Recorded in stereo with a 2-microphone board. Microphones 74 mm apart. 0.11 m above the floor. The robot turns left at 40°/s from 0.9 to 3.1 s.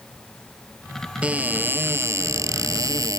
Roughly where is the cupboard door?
Ahead.